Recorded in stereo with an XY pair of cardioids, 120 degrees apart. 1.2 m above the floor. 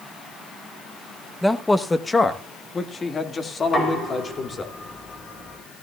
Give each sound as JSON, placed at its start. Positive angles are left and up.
{"t": 1.4, "sound": "a man speaking", "azimuth_deg": 0, "distance_m": 0.9}
{"t": 3.6, "sound": "knocking", "azimuth_deg": 30, "distance_m": 4.5}